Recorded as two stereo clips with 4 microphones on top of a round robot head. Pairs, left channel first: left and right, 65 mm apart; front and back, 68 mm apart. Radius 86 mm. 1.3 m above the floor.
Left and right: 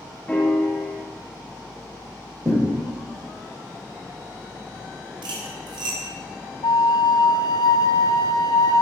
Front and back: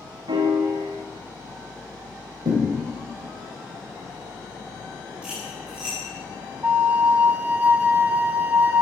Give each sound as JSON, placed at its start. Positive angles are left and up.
{"t": 0.3, "sound": "a piano", "azimuth_deg": 165, "distance_m": 1.0}
{"t": 2.5, "sound": "a thud", "azimuth_deg": -155, "distance_m": 3.0}
{"t": 5.2, "sound": "cutlery clinking", "azimuth_deg": -100, "distance_m": 2.0}
{"t": 6.6, "sound": "a flute", "azimuth_deg": 115, "distance_m": 0.6}